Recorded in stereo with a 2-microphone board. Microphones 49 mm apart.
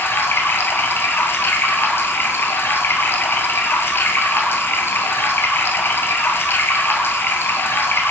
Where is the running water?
50° left (ahead or behind), 1.3 m.